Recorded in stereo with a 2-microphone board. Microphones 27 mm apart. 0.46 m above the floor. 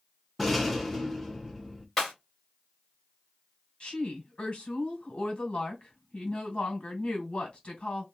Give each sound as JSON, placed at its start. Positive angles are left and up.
{"t": 0.4, "sound": "a rattle", "side_deg": 10, "distance_m": 0.7}
{"t": 2.0, "sound": "breaking glass", "side_deg": 10, "distance_m": 1.8}
{"t": 3.8, "sound": "a woman speaking", "side_deg": 45, "distance_m": 1.9}